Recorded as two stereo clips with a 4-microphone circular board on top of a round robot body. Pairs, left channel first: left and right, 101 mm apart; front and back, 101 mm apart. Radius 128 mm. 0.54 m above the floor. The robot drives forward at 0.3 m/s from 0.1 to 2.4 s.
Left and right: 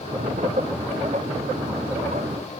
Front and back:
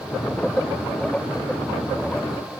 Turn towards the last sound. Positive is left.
No sound to turn to.